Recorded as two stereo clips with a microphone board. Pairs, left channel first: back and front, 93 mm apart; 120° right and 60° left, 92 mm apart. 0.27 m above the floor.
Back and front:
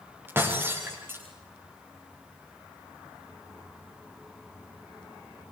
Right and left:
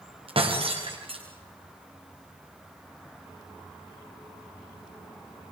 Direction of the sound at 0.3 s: 65° left.